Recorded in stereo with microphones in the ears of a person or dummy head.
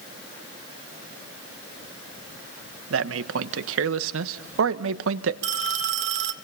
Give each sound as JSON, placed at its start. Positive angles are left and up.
{"t": 2.9, "sound": "a man speaking", "side_deg": -80, "distance_m": 1.2}
{"t": 5.4, "sound": "a phone ringing", "side_deg": -65, "distance_m": 2.0}